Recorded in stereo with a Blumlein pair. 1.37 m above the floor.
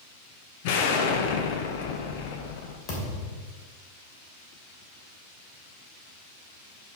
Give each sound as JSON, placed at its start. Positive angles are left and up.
{"t": 0.6, "sound": "an explosion", "azimuth_deg": 50, "distance_m": 1.1}
{"t": 2.9, "sound": "a thud", "azimuth_deg": 30, "distance_m": 2.5}